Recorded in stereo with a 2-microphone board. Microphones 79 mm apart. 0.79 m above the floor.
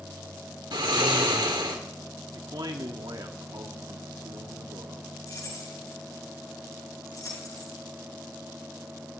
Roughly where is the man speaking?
Right.